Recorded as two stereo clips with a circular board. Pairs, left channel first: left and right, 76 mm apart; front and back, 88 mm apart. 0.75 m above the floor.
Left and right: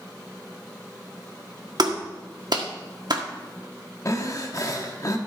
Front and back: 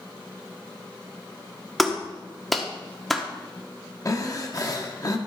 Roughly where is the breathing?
Ahead left.